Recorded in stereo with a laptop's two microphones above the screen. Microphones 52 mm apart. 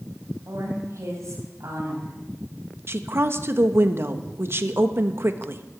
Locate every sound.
0.5 s a woman speaking: 65° right (ahead or behind), 5.5 m
2.9 s a woman speaking: 50° right (ahead or behind), 1.1 m